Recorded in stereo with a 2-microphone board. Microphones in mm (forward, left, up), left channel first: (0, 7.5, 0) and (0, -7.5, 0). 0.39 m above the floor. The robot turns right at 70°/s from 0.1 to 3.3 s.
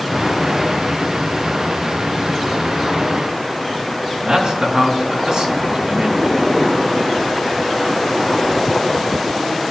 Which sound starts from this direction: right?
A man speaking, at 4.2 s.